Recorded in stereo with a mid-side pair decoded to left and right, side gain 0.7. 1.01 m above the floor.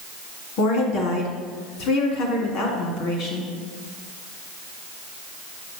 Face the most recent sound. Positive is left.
turn(degrees=60)